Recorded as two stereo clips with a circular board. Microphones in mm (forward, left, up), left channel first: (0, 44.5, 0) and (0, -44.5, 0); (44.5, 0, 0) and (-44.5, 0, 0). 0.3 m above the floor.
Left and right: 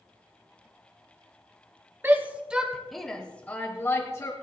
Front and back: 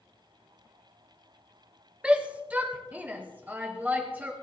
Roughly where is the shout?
Behind right.